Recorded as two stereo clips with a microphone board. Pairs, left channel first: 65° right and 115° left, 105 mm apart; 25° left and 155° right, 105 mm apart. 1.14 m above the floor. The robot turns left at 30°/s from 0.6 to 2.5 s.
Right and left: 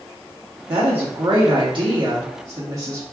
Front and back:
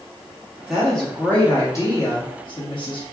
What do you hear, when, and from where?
0.7 s a woman speaking: 115° left, 1.4 m; by 3.0 s 60° left, 1.4 m